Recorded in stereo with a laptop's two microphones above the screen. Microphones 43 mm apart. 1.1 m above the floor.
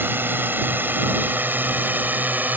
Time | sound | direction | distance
0.0 | a drone | 55° right (ahead or behind) | ?